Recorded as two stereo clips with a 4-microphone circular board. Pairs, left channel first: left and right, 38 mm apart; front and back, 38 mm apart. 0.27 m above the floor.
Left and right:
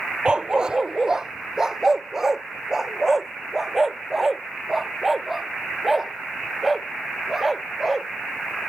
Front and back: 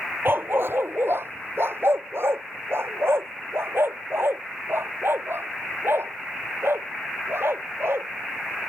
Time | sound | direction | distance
0.2 | a dog barking | 160° right | ?